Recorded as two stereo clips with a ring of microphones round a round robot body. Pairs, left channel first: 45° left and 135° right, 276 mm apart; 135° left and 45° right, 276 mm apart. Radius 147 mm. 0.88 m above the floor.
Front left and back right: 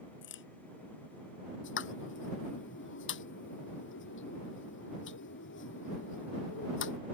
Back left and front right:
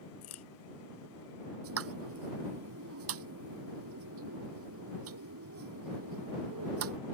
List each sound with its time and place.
0.2 s a crack: 95° left
1.6 s a pop: 5° right